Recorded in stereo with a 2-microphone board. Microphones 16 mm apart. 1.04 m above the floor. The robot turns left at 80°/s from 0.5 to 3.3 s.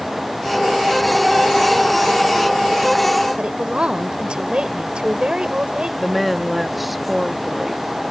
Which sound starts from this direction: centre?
A woman speaking, at 6.0 s.